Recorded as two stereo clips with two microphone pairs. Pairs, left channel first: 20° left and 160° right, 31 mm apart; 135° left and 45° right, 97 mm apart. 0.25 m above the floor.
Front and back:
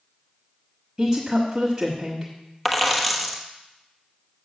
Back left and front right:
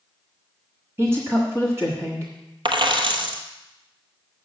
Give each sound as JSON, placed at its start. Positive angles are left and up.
{"t": 1.0, "sound": "a woman speaking", "azimuth_deg": -80, "distance_m": 1.3}
{"t": 2.6, "sound": "a dropped coin", "azimuth_deg": -65, "distance_m": 1.0}